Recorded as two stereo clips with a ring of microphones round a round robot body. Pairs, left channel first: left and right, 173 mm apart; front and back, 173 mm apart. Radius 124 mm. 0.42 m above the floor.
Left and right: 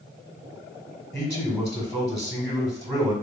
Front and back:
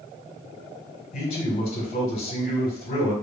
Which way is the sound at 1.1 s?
20° right.